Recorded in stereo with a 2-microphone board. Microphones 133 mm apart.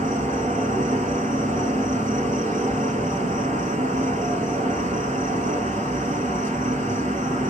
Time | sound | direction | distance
0.0 | an insect | 60° right (ahead or behind) | 1.2 m